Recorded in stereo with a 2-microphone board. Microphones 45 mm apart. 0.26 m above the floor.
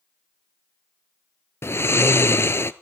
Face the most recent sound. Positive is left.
turn(degrees=60)  # may be behind; listen again after turning